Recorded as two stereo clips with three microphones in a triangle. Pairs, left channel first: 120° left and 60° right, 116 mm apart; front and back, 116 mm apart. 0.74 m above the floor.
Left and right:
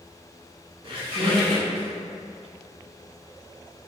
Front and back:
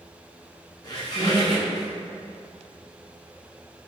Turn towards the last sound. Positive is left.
turn(degrees=-40)